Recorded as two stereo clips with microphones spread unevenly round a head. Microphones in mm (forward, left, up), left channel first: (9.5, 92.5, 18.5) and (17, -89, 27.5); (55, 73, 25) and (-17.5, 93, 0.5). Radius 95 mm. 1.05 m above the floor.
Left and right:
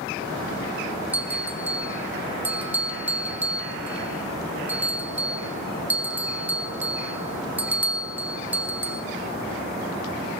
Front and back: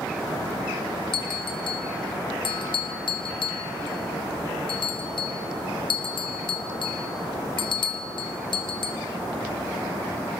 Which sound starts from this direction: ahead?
A bell, at 1.1 s.